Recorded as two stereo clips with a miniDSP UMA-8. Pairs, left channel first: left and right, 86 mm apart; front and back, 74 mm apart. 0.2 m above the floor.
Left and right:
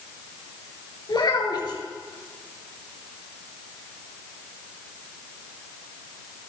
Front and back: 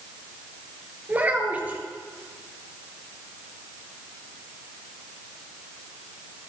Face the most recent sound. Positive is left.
turn(degrees=115)